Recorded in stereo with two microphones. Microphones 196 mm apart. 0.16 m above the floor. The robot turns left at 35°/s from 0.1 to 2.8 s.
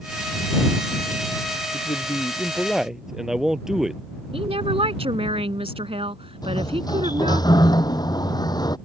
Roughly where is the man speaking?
Ahead left.